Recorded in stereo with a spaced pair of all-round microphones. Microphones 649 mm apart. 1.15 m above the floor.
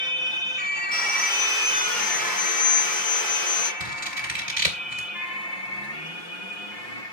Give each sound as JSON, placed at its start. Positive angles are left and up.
{"t": 0.9, "sound": "sawing", "side_deg": 15, "distance_m": 7.0}
{"t": 3.8, "sound": "scissors", "side_deg": -60, "distance_m": 2.5}